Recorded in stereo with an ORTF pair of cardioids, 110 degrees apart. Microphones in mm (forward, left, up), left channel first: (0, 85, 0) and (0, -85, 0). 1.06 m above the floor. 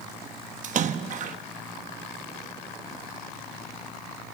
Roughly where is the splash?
Ahead right.